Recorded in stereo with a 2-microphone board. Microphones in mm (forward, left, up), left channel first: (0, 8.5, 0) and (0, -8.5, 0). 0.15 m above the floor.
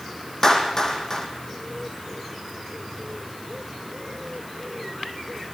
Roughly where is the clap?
Left.